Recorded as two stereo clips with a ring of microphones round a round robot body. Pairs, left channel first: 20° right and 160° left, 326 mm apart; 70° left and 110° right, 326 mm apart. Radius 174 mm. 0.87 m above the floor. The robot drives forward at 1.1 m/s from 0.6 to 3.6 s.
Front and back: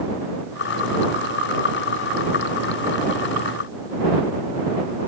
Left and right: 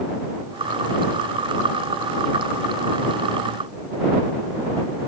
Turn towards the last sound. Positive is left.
No sound to turn to.